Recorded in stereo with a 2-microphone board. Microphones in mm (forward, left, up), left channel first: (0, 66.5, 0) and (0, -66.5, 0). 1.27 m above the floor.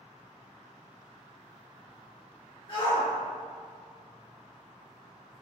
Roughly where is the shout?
Left.